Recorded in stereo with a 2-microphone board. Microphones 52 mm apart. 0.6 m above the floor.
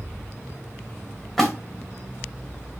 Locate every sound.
1.4 s a splash: 5° left (ahead or behind), 2 m